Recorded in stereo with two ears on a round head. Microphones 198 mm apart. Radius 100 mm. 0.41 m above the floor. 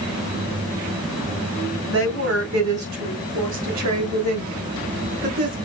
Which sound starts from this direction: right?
A woman speaking, at 1.9 s.